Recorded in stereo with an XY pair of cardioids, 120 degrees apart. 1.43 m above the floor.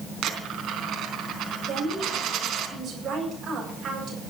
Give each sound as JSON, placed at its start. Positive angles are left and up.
{"t": 0.2, "sound": "a dropped coin", "azimuth_deg": -60, "distance_m": 4.0}
{"t": 1.7, "sound": "a woman speaking", "azimuth_deg": -40, "distance_m": 8.5}